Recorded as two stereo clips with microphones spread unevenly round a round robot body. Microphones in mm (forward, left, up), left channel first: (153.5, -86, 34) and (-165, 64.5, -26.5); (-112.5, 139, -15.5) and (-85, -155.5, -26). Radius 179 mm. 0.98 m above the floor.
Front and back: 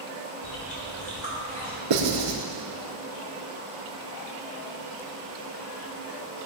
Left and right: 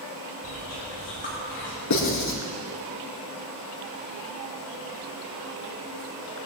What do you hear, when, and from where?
0.4 s chewing: 35° left, 4 m
1.9 s writing: 125° left, 4.5 m